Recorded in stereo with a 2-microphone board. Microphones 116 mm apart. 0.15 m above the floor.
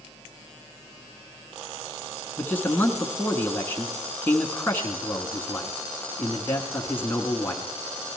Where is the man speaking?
20° left (ahead or behind), 1.2 m.